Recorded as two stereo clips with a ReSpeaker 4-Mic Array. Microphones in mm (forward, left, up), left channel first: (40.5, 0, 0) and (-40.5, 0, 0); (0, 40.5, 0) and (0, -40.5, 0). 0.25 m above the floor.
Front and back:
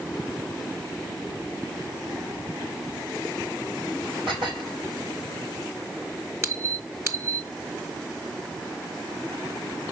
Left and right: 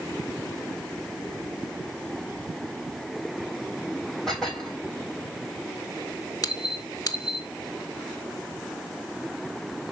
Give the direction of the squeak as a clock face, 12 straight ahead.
8 o'clock.